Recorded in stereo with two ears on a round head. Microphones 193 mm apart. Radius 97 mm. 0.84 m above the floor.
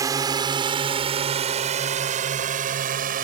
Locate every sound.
0.0 s a drone: 15° right (ahead or behind); by 3.2 s 45° right (ahead or behind)